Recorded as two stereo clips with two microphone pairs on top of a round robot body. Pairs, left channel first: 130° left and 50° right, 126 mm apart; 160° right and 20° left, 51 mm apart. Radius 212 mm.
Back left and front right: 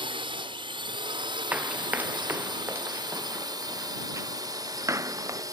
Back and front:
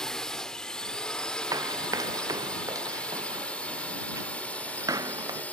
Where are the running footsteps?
30° left; by 5.4 s 20° left.